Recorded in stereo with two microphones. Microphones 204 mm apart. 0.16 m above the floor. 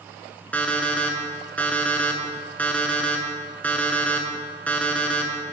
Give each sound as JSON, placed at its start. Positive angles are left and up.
{"t": 0.5, "sound": "an alarm clock", "side_deg": 10, "distance_m": 0.7}